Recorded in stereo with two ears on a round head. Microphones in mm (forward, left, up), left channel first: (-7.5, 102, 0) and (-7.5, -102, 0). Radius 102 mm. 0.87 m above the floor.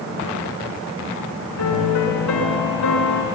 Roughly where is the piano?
Left.